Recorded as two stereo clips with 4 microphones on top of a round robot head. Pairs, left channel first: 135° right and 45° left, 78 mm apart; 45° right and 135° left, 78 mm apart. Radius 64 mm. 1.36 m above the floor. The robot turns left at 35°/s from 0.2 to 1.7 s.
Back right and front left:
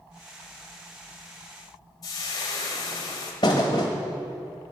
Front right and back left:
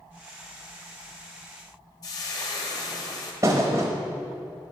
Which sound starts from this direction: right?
Frying, at 2.0 s.